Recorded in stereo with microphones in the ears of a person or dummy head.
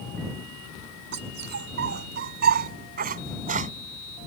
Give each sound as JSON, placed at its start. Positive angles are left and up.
{"t": 1.1, "sound": "a dog barking", "side_deg": -60}